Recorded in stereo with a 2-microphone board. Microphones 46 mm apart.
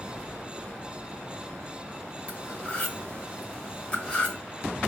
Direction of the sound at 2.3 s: 25° left (ahead or behind).